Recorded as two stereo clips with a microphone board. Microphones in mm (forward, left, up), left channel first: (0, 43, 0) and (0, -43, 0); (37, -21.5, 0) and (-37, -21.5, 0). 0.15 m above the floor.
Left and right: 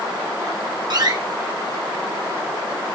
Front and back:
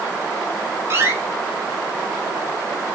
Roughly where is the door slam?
Behind right.